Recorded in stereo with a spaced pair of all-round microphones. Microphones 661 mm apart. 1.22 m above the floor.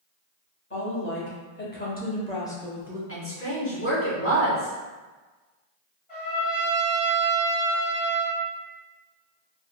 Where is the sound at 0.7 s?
20° left (ahead or behind), 1.4 m; by 3.0 s 5° right (ahead or behind), 0.5 m.